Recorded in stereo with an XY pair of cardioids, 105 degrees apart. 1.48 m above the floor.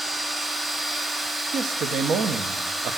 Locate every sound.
0.0 s a machine running: 20° right, 1.1 m
1.5 s a man speaking: 60° right, 1.3 m